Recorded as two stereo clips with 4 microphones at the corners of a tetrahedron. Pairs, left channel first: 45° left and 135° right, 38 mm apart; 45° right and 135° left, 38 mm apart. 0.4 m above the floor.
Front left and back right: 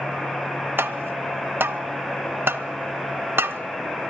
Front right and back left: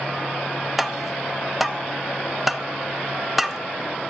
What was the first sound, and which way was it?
Tapping, 135° right.